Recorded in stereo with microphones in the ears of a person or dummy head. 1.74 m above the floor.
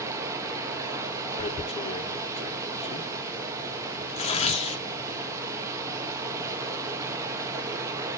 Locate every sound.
0.0 s running water: 20° right (ahead or behind), 1.2 m
1.4 s tearing paper: 35° left (ahead or behind), 1.2 m